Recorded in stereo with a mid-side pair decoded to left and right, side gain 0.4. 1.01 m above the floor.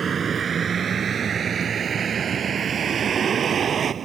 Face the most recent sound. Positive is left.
turn(degrees=-55)